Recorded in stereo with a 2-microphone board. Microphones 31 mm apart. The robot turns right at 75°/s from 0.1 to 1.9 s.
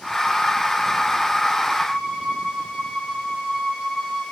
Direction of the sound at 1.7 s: 35° right (ahead or behind).